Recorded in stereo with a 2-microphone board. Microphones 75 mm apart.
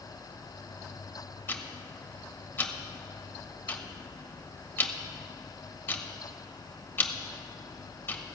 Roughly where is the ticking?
Left.